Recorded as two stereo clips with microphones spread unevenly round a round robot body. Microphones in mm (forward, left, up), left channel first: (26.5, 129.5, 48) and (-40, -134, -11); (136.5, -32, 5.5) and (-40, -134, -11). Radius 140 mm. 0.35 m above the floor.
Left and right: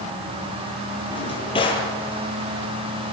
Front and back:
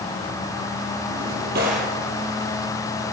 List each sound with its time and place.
1.1 s a drawer: 150° left, 6 m